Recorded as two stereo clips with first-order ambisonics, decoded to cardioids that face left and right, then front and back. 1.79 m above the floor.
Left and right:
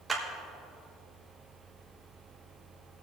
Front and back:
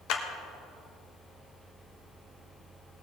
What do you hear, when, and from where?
0.1 s a clap: 10° right, 1.4 m